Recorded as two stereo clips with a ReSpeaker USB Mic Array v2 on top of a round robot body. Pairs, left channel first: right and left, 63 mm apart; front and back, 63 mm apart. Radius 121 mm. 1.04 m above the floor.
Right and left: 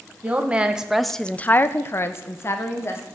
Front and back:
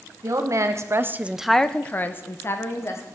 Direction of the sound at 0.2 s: 155° left.